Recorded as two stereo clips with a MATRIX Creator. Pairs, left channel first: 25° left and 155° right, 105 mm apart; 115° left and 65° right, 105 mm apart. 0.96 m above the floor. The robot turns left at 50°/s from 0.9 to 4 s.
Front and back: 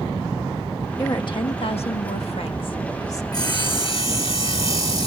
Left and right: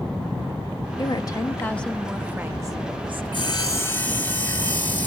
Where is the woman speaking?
75° left, 1.3 m; by 3.2 s 35° right, 1.3 m.